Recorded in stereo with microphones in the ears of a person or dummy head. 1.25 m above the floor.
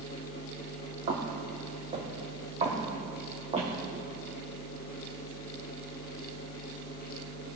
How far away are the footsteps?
About 2.5 m.